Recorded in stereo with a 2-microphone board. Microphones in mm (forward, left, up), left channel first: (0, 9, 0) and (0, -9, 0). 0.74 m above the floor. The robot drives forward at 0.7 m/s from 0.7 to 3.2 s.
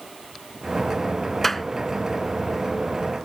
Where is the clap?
15° left (ahead or behind).